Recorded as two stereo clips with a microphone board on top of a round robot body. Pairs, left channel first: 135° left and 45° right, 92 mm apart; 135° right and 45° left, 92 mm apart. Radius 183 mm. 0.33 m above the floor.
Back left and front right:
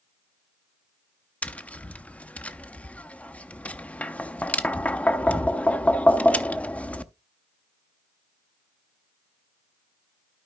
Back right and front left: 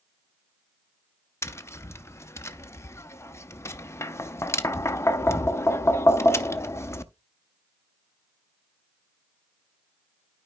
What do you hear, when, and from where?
1.4 s tapping: 160° right, 0.9 m